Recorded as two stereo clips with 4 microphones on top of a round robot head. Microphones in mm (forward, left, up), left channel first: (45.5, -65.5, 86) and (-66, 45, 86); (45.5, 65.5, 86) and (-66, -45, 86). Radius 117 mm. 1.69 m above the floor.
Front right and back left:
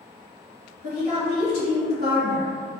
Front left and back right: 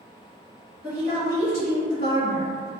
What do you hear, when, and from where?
0.8 s a woman speaking: 5° left, 1.4 m